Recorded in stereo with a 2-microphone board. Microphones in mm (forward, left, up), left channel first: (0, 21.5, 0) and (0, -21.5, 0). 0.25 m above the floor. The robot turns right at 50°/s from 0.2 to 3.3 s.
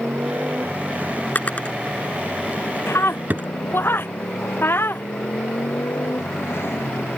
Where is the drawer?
50° left (ahead or behind); by 3.5 s 45° right (ahead or behind).